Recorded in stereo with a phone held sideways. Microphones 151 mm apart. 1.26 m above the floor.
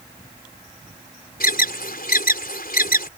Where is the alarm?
85° left.